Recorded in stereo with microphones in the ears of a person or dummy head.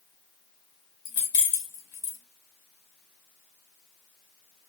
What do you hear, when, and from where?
1.1 s keys jangling: 70° left (ahead or behind), 1.4 m